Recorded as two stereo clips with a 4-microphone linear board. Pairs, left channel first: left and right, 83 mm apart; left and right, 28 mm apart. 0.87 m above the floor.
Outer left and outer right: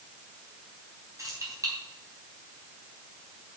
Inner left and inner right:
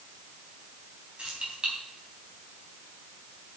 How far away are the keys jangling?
About 4 m.